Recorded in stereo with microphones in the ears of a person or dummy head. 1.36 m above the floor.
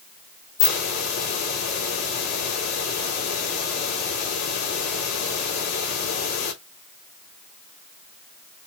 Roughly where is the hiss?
Left.